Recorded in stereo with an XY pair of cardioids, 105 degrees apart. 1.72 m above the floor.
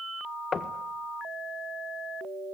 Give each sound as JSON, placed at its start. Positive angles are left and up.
{"t": 0.5, "sound": "knocking", "azimuth_deg": 45, "distance_m": 1.7}